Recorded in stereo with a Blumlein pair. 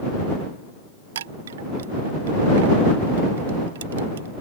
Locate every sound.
1.1 s a chime: 60° right